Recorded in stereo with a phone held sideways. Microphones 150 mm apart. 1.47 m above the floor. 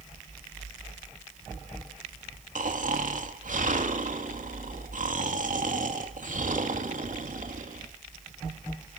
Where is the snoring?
60° right (ahead or behind), 2.5 m.